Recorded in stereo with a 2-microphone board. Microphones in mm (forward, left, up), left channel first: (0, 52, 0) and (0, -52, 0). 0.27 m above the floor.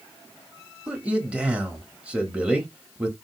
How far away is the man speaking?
About 0.9 m.